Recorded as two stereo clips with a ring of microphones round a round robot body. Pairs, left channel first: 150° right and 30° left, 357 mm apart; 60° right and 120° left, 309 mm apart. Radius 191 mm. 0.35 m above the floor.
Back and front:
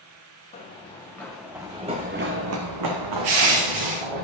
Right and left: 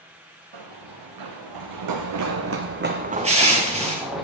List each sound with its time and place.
0.5 s running footsteps: 135° left, 2 m; by 4.2 s 30° left, 2 m
3.2 s crushing: 50° left, 2 m